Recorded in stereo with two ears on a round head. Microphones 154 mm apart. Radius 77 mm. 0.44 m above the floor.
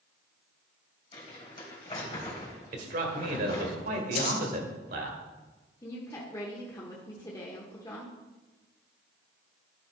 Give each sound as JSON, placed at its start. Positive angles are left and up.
{"t": 1.1, "sound": "crumpling", "side_deg": 30, "distance_m": 3.0}
{"t": 2.7, "sound": "a man speaking", "side_deg": -50, "distance_m": 1.5}
{"t": 4.2, "sound": "scissors", "side_deg": 40, "distance_m": 3.0}
{"t": 5.8, "sound": "a woman speaking", "side_deg": 20, "distance_m": 1.0}